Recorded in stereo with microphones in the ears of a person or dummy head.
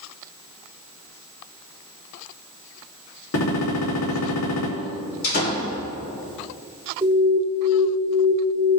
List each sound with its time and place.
3.3 s a gunshot: 90° left, 2.5 m
5.2 s a door slam: 55° left (ahead or behind), 3 m
7.0 s an alarm: 15° right (ahead or behind), 2.5 m